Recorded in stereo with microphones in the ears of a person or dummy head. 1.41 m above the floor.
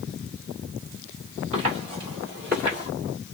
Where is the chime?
No chime in this recording.